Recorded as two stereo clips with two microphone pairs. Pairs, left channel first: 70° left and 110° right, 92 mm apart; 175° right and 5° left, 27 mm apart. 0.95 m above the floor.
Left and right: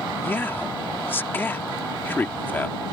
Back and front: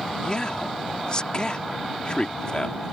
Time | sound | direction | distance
0.2 | a man speaking | 135° left | ?